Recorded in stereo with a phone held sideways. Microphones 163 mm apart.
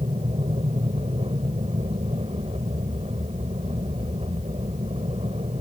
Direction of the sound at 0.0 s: 40° right (ahead or behind).